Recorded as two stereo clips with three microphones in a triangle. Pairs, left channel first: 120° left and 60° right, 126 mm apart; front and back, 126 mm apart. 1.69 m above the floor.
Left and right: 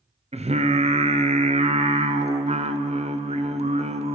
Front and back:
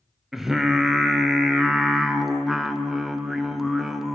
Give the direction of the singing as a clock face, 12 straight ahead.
3 o'clock.